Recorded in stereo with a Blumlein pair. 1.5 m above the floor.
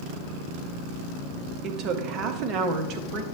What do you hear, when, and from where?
1.6 s a woman speaking: 35° right, 0.9 m